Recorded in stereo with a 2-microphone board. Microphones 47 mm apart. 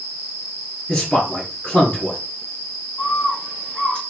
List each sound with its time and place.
0.9 s a man speaking: 10° left (ahead or behind), 1.9 m
3.0 s a bird: 20° left (ahead or behind), 2 m